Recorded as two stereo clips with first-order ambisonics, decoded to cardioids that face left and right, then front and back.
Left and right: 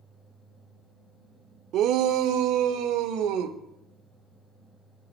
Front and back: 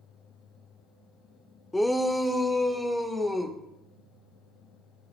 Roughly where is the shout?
Right.